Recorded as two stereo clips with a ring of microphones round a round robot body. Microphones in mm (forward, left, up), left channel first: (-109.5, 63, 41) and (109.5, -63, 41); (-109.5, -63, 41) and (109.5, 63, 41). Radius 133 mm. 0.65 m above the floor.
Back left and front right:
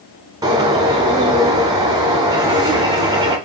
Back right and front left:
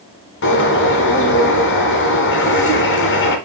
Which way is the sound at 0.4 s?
105° right.